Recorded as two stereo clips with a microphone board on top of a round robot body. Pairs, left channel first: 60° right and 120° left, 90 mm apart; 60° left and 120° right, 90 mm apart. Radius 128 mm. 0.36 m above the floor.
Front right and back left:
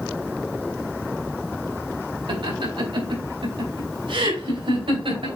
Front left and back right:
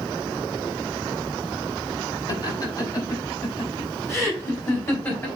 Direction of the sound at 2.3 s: 100° left.